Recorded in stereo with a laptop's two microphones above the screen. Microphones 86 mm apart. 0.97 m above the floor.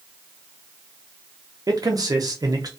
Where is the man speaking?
50° right (ahead or behind), 0.6 m.